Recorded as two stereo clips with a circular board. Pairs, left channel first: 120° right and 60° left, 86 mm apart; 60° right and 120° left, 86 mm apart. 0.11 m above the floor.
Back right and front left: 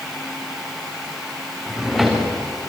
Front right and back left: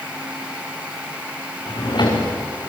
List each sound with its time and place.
1.7 s a drawer: 30° right, 4.5 m